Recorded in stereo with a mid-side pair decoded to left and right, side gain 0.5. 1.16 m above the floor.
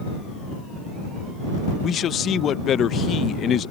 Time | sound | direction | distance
1.8 | a man speaking | 55° left | ?